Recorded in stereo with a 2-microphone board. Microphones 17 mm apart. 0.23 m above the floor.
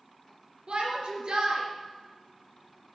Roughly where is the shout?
Right.